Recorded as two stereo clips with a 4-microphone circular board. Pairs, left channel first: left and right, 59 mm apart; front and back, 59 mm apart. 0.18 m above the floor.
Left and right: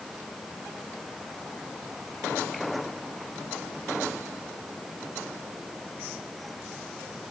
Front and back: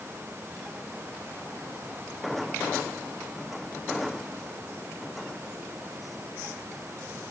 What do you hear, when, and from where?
Only background noise.